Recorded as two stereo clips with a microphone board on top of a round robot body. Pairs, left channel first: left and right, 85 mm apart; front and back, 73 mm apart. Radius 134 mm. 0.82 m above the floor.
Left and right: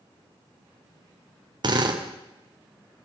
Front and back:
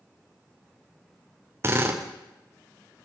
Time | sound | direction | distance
1.6 | a drill | 125° right | 3 m